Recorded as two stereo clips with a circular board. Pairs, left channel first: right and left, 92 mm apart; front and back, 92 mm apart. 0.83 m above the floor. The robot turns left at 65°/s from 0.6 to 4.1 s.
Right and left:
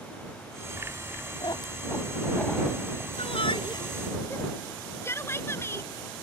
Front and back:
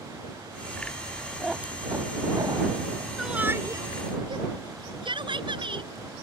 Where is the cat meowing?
90° right; by 3.1 s 160° left.